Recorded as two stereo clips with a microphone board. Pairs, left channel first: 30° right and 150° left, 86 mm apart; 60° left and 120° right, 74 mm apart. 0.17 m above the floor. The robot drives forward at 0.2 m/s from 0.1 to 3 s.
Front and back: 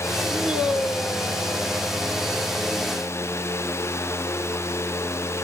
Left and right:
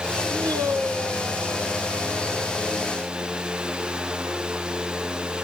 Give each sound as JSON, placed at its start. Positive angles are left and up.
{"t": 0.3, "sound": "a man speaking", "azimuth_deg": -130, "distance_m": 3.0}